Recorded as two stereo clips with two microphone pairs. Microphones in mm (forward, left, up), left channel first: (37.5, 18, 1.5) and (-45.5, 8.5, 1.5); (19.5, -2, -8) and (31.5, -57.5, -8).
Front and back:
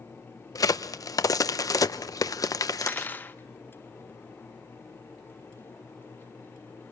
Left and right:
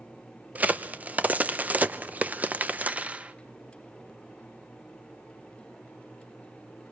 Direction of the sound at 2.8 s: 40° right.